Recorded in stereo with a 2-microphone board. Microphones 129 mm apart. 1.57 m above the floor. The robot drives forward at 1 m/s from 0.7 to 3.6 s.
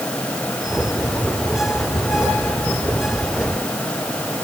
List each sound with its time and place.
Only background noise.